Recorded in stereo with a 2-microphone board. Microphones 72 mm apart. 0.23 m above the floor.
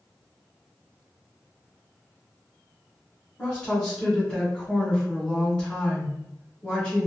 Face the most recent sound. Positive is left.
turn(degrees=10)  # may be behind; listen again after turning